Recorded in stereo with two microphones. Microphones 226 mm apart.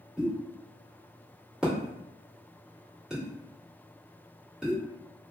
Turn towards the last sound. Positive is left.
turn(degrees=-5)  # may be behind; listen again after turning